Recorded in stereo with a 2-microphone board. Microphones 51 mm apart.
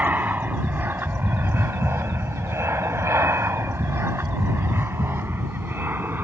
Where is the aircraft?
35° right (ahead or behind); by 6.2 s 40° right (ahead or behind).